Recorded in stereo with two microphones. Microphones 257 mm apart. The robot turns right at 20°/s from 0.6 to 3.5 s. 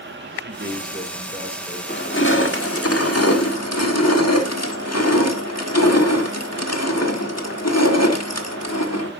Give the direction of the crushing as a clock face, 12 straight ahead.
11 o'clock.